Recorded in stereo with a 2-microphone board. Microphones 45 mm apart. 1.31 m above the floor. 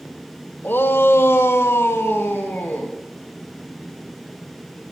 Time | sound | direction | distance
0.6 | a shout | 55° left (ahead or behind) | 1.5 m